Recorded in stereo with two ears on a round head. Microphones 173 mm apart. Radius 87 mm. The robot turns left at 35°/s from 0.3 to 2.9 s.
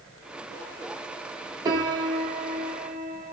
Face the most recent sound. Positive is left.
turn(degrees=-15)  # may be behind; listen again after turning